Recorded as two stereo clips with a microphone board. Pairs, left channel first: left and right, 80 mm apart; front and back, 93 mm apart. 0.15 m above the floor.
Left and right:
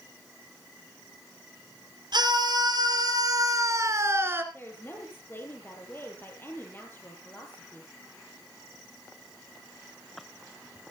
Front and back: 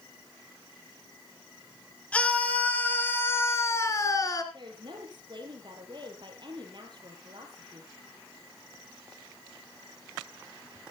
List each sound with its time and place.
2.1 s a scream: 75° right, 4 m; by 4.4 s 35° right, 2.5 m
4.5 s a woman speaking: 150° left, 4.5 m